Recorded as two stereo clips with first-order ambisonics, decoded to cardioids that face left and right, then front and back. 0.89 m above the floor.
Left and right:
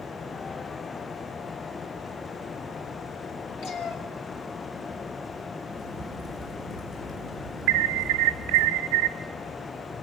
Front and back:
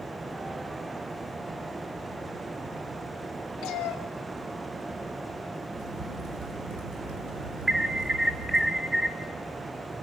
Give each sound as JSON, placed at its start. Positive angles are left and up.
{"t": 3.6, "sound": "a cat meowing", "azimuth_deg": 50, "distance_m": 2.5}
{"t": 5.7, "sound": "a crack", "azimuth_deg": 180, "distance_m": 5.5}
{"t": 7.7, "sound": "an alarm", "azimuth_deg": -100, "distance_m": 0.9}